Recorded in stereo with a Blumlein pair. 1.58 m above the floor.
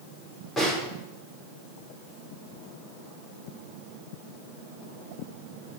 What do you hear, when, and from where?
0.6 s a snare drum: 15° left, 5.5 m